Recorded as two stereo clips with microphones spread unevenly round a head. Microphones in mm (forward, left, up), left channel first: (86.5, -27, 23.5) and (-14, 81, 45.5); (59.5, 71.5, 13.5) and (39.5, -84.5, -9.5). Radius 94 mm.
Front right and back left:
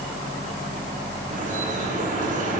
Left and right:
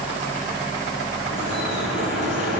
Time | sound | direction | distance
1.3 | dripping | 105° left | 8.5 m